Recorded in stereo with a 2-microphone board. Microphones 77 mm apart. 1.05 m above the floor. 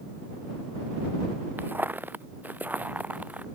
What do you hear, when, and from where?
1.6 s footsteps: 25° right (ahead or behind); by 3.5 s 20° right (ahead or behind)